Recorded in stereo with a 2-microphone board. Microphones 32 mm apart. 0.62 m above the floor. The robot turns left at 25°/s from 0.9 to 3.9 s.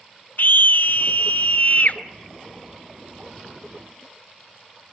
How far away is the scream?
About 1.7 m.